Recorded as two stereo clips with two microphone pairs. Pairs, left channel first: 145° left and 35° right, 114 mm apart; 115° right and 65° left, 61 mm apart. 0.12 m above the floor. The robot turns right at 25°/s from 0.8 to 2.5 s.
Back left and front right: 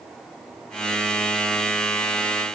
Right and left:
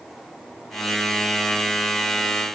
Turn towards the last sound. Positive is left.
No sound to turn to.